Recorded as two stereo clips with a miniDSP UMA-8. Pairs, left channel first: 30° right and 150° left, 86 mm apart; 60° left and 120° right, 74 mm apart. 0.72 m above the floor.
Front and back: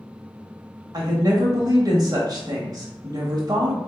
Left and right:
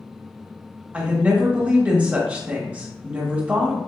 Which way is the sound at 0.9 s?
170° left.